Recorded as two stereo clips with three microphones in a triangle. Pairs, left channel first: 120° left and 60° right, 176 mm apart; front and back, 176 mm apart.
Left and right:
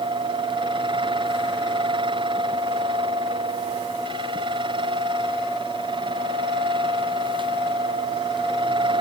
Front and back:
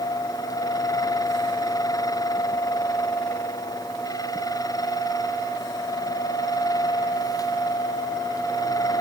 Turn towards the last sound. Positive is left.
No sound to turn to.